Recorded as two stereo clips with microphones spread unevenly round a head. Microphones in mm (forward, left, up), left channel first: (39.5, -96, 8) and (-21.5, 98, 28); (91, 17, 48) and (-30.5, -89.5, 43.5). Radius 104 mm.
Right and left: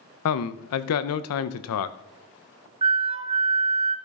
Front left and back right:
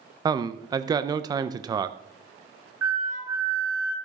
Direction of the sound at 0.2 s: 70° right.